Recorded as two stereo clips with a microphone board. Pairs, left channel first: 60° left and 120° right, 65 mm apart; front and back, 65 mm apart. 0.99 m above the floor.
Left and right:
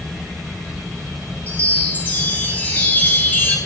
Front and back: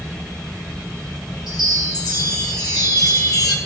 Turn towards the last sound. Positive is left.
turn(degrees=0)